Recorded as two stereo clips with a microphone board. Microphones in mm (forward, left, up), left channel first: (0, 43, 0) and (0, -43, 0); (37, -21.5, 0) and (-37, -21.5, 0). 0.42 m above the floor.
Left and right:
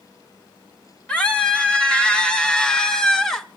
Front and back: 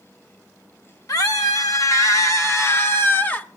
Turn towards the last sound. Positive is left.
turn(degrees=15)